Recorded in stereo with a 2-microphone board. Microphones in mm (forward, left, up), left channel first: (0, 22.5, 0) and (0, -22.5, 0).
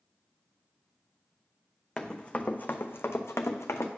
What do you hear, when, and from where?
2.0 s running footsteps: 15° left (ahead or behind), 0.7 m; by 3.9 s 85° left, 0.8 m